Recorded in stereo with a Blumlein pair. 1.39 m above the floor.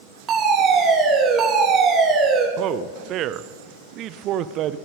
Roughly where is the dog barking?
No dog barking in this recording.